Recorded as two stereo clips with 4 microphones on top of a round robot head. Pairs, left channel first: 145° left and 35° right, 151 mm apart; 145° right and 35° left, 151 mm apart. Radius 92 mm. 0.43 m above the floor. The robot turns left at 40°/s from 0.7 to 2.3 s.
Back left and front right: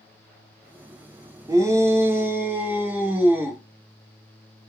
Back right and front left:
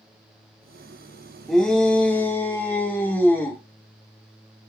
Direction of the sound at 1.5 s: 60° right.